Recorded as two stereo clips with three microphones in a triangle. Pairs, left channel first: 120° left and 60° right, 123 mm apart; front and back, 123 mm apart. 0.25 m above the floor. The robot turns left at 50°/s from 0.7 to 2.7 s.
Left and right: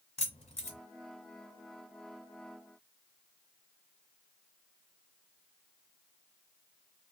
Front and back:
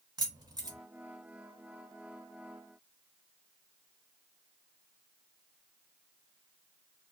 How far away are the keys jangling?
About 1.5 m.